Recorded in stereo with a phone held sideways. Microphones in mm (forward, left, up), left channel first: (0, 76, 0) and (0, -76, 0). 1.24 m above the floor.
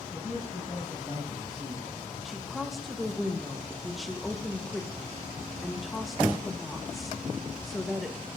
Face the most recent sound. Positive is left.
turn(degrees=0)  # may be behind; listen again after turning